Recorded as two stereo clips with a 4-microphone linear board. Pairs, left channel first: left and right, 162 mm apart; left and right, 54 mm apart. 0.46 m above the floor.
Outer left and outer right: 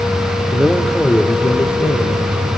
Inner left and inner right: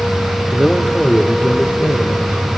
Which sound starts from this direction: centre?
A man speaking, at 0.5 s.